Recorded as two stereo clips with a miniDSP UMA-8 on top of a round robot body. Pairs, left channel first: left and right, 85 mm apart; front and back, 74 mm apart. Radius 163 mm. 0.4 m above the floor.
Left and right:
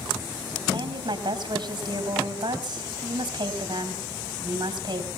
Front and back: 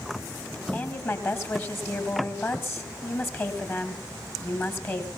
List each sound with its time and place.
0.7 s a woman speaking: 55° right, 3.5 m